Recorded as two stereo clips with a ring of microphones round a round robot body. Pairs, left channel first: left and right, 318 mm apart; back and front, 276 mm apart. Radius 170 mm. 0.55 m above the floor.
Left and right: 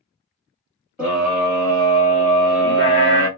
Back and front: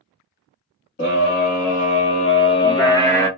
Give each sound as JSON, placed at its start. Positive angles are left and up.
{"t": 1.0, "sound": "a scream", "azimuth_deg": -175, "distance_m": 1.4}